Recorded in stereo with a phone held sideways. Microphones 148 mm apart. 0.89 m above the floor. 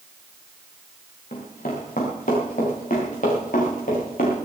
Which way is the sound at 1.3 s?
65° left (ahead or behind).